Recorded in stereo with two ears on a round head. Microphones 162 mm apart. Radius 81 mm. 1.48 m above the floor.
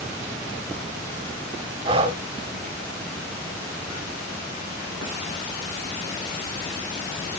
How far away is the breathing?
About 1.4 m.